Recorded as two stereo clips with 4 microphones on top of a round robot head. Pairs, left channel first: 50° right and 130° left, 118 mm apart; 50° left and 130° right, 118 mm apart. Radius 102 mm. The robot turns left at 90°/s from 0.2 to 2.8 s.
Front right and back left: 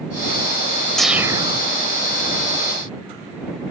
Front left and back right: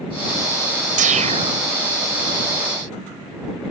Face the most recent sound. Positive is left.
turn(degrees=60)